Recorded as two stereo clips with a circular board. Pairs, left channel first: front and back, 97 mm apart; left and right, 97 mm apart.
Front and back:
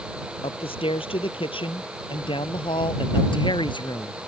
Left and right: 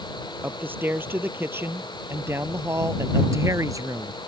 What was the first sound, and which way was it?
A man speaking, 20° right.